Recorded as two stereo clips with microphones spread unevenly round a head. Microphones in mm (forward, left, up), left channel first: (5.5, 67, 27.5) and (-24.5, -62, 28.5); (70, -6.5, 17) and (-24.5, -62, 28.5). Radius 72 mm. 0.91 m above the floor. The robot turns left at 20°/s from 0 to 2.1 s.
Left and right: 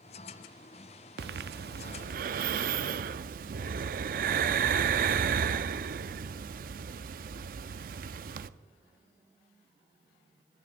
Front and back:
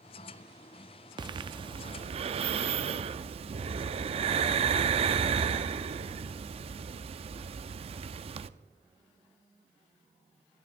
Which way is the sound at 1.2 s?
105° right.